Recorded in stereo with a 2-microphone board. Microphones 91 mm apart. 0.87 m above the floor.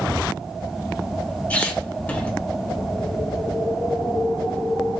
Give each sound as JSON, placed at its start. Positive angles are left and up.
{"t": 1.5, "sound": "a squeak", "side_deg": 20, "distance_m": 1.0}